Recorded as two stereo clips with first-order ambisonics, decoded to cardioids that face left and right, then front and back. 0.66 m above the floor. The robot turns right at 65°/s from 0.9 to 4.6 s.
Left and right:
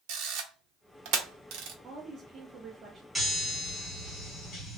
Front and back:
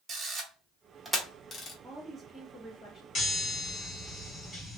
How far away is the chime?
About 1.3 m.